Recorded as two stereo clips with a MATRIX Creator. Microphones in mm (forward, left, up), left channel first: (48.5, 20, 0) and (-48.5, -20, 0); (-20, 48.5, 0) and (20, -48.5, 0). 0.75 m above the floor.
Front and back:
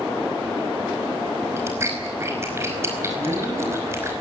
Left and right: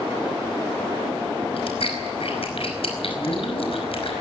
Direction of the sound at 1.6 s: 140° left.